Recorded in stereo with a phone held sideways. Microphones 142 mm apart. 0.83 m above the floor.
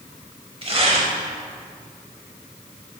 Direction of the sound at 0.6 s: 40° right (ahead or behind).